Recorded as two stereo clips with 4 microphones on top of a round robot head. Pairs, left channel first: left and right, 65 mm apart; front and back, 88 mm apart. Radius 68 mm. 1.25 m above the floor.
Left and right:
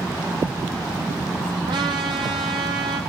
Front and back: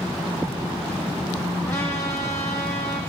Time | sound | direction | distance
1.7 | a trumpet | 75° right | 9.5 m